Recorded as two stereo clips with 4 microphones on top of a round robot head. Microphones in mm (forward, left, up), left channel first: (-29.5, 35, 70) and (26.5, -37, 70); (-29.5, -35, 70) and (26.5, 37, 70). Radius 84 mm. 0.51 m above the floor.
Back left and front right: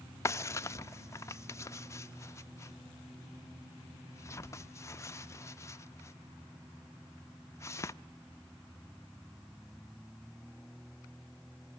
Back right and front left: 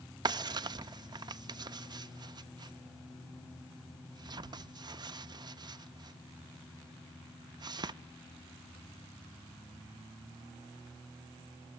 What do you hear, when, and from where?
0.2 s a drawer: 75° left, 0.6 m